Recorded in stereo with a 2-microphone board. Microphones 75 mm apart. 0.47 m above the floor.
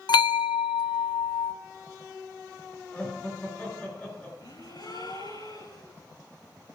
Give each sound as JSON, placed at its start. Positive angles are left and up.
{"t": 0.1, "sound": "a bell", "side_deg": 70, "distance_m": 0.5}
{"t": 2.9, "sound": "laughter", "side_deg": 20, "distance_m": 7.5}
{"t": 4.4, "sound": "a gasp", "side_deg": 80, "distance_m": 10.0}